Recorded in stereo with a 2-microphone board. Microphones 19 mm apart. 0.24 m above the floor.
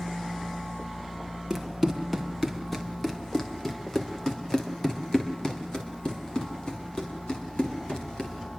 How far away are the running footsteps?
About 4 m.